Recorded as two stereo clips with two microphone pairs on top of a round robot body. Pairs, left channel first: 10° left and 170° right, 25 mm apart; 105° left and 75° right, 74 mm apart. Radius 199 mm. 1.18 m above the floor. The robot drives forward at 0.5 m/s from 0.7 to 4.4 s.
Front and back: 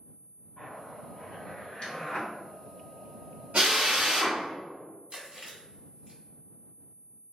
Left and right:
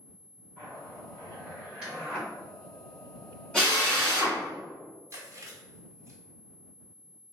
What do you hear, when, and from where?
0.6 s a zipper: 5° left, 1.9 m; by 2.3 s 10° left, 1.2 m
3.5 s a drill: 175° right, 1.3 m
5.1 s chewing: 130° right, 1.2 m